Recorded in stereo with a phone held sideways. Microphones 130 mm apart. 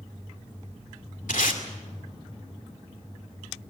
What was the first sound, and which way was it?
Tape being pulled, 85° left.